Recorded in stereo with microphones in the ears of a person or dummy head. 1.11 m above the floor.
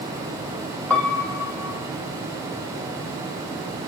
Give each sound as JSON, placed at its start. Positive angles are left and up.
{"t": 0.9, "sound": "a piano", "side_deg": 5, "distance_m": 1.0}